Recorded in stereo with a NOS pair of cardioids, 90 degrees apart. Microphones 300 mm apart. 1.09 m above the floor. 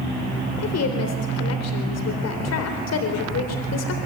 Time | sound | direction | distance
0.6 | a woman speaking | 60° left | 4 m